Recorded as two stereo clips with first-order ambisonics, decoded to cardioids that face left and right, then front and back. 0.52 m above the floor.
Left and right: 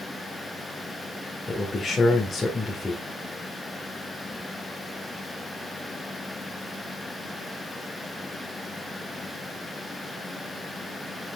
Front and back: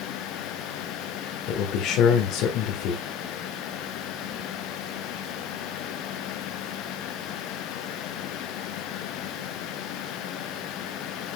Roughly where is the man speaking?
Ahead.